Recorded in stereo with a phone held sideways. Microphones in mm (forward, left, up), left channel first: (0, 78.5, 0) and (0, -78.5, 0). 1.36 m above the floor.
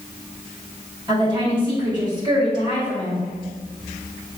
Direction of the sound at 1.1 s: 30° right (ahead or behind).